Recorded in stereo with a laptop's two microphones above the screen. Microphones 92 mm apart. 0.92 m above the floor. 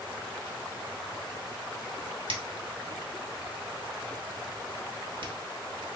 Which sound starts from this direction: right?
A finger snap, at 2.3 s.